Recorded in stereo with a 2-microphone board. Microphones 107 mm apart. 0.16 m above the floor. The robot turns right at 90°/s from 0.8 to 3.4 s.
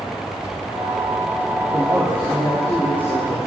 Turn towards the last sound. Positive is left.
turn(degrees=95)